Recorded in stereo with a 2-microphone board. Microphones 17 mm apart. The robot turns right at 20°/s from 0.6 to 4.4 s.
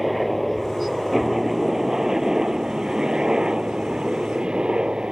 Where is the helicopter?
Straight behind; by 5.1 s 100° right.